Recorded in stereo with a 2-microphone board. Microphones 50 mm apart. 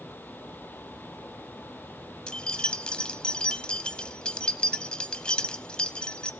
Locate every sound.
2.3 s keys jangling: 20° left (ahead or behind), 0.8 m